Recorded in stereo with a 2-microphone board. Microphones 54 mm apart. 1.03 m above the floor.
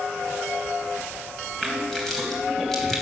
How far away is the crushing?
About 2.5 m.